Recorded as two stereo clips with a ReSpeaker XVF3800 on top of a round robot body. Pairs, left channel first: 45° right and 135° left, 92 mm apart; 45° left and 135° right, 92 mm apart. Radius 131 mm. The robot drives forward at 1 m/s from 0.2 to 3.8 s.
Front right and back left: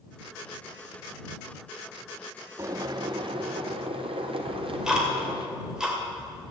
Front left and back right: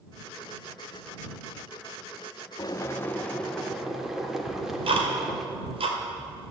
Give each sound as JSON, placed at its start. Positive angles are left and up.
{"t": 2.6, "sound": "boiling", "azimuth_deg": 85, "distance_m": 1.1}
{"t": 4.5, "sound": "ticking", "azimuth_deg": -145, "distance_m": 2.5}